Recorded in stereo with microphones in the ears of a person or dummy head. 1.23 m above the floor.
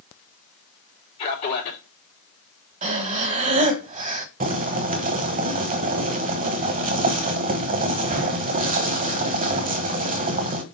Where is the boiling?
40° right (ahead or behind), 0.9 m.